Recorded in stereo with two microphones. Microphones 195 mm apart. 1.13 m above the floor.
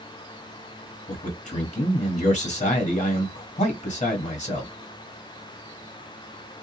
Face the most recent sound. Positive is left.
turn(degrees=35)  # may be behind; listen again after turning